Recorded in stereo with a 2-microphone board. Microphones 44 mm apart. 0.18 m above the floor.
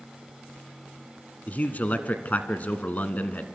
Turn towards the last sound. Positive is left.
turn(degrees=35)  # may be behind; listen again after turning